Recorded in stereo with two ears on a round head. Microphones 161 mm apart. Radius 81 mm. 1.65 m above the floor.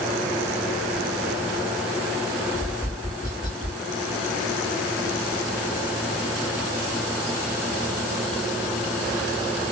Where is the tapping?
20° left (ahead or behind), 3 m.